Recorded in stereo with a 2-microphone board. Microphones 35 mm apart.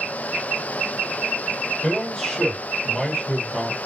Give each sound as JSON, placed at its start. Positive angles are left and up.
{"t": 1.8, "sound": "a man speaking", "side_deg": 30, "distance_m": 1.7}